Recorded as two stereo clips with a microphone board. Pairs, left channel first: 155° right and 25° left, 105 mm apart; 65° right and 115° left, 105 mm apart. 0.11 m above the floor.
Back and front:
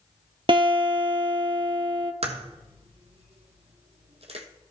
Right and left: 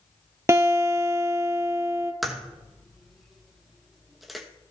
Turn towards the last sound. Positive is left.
turn(degrees=25)